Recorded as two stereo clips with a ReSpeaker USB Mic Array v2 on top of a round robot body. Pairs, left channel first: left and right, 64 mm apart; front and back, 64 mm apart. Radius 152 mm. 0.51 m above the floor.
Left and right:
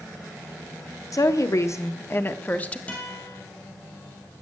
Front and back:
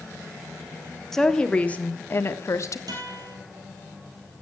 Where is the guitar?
160° left, 3.5 m.